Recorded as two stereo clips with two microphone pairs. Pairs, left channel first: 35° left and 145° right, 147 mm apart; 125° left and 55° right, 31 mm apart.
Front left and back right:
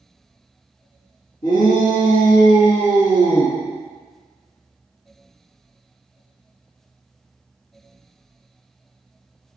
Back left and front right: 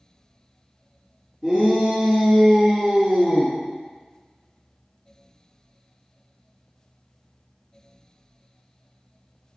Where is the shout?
35° left, 1.3 m; by 3.5 s 130° right, 1.5 m.